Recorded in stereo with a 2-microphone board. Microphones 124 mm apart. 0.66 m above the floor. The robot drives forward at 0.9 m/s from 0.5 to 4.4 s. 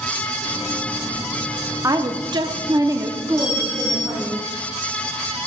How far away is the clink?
About 4 m.